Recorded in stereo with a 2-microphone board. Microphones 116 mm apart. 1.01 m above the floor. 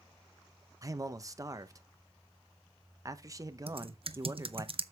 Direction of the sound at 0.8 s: 30° right (ahead or behind).